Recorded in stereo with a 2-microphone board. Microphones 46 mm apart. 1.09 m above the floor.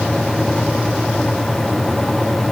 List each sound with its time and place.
Only background noise.